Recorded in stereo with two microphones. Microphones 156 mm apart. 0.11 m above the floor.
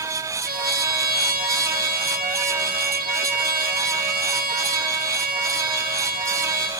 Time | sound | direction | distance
0.5 | a trumpet | 65° right (ahead or behind) | 4 m